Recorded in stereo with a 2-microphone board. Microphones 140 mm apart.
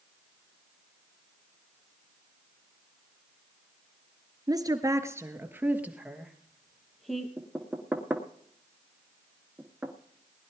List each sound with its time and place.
4.5 s a woman speaking: 30° right (ahead or behind), 1.8 m; by 7.3 s centre (ahead or behind), 3 m
7.4 s knocking: 10° right (ahead or behind), 1.5 m